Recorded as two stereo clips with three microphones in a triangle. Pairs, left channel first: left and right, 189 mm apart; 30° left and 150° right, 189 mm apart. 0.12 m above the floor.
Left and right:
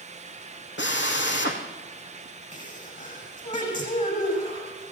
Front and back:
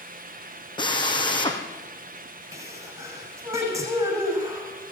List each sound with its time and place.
0.8 s a drill: 95° left, 3.5 m
2.5 s a sneeze: 135° left, 8.5 m